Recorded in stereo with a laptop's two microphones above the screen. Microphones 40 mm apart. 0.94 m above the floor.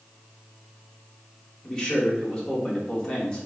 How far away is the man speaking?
About 1.7 m.